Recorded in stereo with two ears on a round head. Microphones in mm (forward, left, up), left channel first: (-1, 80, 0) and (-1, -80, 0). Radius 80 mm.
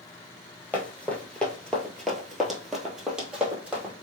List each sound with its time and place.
0.7 s running footsteps: 10° left (ahead or behind), 1.1 m; by 3.9 s 5° right (ahead or behind), 1.6 m